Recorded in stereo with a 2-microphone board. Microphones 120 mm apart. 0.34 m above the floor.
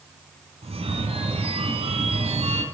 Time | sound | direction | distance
0.6 | a phone ringing | 55° right (ahead or behind) | 1.7 m